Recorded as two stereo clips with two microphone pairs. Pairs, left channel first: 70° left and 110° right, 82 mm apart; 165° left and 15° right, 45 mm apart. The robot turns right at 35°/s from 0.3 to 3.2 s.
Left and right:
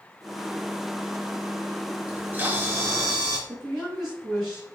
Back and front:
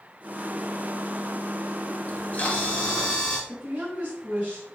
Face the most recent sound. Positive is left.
turn(degrees=-30)